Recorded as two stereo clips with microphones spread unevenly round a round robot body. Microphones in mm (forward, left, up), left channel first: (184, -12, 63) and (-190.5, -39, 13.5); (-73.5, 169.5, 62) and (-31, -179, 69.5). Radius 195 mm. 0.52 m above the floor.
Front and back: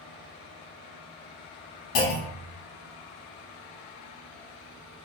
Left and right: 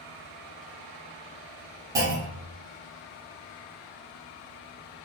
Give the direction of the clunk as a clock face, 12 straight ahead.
12 o'clock.